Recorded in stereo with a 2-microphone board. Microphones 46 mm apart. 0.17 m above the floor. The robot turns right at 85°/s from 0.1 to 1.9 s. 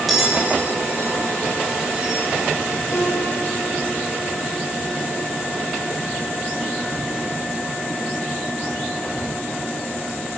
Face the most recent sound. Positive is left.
turn(degrees=65)  # may be behind; listen again after turning